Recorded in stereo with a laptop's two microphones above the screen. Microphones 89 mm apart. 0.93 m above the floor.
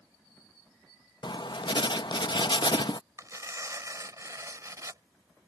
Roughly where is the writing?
Left.